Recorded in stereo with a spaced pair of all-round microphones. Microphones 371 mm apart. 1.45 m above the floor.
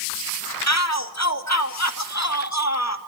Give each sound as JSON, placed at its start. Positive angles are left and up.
{"t": 0.7, "sound": "a shout", "side_deg": 45, "distance_m": 2.0}